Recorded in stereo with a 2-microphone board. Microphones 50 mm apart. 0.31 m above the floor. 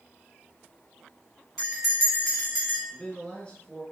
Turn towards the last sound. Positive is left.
turn(degrees=25)  # may be behind; listen again after turning